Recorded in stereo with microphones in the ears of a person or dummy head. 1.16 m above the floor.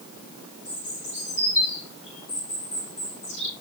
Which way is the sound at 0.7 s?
40° left (ahead or behind).